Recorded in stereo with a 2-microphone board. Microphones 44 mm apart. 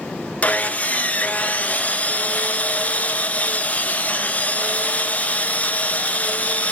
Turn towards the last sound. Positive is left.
turn(degrees=35)  # may be behind; listen again after turning